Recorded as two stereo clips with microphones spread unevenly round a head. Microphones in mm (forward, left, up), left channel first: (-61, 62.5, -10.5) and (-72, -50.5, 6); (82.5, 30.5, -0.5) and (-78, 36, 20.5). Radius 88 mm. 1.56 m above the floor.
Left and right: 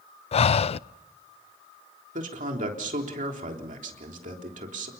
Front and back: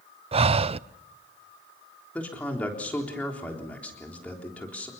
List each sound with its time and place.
0.3 s breathing: 125° left, 0.5 m
2.1 s a man speaking: 85° right, 3.5 m